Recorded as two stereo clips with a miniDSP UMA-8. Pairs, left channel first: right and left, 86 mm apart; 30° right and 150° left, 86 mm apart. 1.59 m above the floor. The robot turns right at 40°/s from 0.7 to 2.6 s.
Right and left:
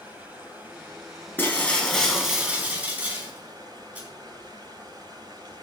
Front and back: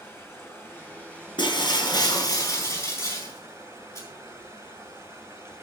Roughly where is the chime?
No chime in this recording.